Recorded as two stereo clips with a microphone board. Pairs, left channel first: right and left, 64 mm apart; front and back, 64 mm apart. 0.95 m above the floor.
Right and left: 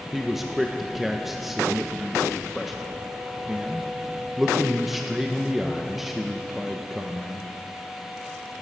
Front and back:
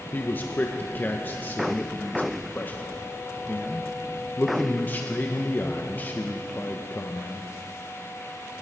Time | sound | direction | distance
0.1 | a man speaking | 5° left | 0.8 m